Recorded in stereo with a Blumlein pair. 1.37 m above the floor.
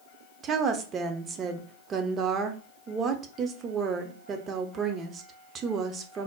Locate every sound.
0.4 s a woman speaking: 25° right, 0.5 m